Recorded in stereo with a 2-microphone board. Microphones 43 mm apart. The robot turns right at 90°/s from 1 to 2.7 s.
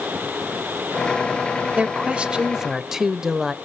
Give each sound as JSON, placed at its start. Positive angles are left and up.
{"t": 1.8, "sound": "a woman speaking", "side_deg": -25, "distance_m": 1.0}